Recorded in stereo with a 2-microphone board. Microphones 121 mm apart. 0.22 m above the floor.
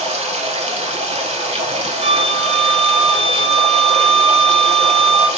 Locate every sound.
0.0 s running water: 60° right (ahead or behind), 0.8 m
2.0 s a flute: 55° right (ahead or behind), 0.8 m